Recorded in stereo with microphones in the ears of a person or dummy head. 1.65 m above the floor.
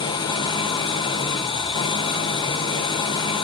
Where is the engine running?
20° left (ahead or behind), 0.8 m.